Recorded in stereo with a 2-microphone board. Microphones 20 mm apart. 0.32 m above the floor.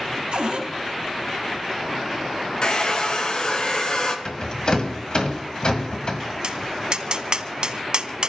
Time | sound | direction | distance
0.3 | a cupboard door | 65° right (ahead or behind) | 3.5 m
2.6 | a hair dryer | 45° left (ahead or behind) | 1.9 m
4.2 | a rattle | 50° left (ahead or behind) | 1.7 m
6.4 | tapping | 50° right (ahead or behind) | 1.1 m